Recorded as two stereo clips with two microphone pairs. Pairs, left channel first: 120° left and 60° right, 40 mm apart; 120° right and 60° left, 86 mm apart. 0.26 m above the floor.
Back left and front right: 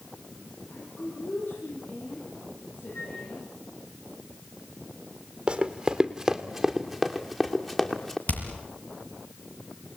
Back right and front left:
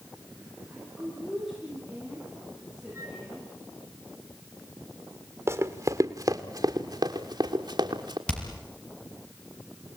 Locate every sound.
0.7 s a woman speaking: 150° left, 8.5 m
2.9 s a flute: 115° left, 9.5 m
5.5 s running footsteps: 5° left, 2 m; by 8.2 s 40° left, 3 m
8.3 s hammering: 160° left, 5.5 m